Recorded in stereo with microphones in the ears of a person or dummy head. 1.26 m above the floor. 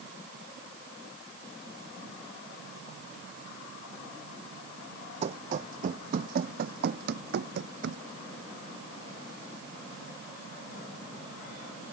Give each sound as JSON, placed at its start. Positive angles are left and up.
{"t": 5.2, "sound": "running footsteps", "side_deg": -40}